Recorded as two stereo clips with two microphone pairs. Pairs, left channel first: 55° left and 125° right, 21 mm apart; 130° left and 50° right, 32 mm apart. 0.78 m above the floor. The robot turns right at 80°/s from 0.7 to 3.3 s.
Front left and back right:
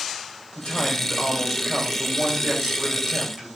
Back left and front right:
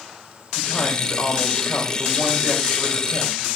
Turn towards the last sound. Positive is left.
turn(degrees=-75)